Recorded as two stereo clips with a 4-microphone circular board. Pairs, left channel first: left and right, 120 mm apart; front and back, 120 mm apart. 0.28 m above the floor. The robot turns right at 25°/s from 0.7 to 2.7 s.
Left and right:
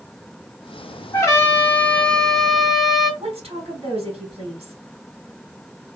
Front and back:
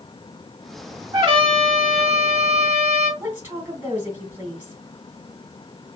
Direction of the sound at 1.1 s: 145° left.